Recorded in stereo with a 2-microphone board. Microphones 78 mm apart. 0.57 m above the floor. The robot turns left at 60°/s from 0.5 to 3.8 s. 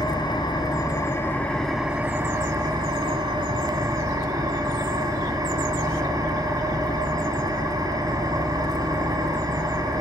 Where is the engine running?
75° left, 3 m; by 10.0 s 125° right, 3 m.